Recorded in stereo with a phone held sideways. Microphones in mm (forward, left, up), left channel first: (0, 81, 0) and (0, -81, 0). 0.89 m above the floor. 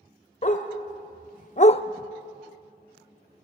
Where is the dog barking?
45° left (ahead or behind), 1.4 m; by 1.8 s 30° left (ahead or behind), 0.5 m.